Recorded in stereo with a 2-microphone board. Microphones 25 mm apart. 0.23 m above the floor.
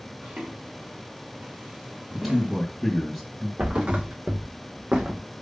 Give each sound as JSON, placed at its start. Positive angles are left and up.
{"t": 0.2, "sound": "footsteps", "side_deg": -70, "distance_m": 3.5}
{"t": 2.1, "sound": "a man speaking", "side_deg": -10, "distance_m": 2.5}
{"t": 3.6, "sound": "a thud", "side_deg": -55, "distance_m": 2.0}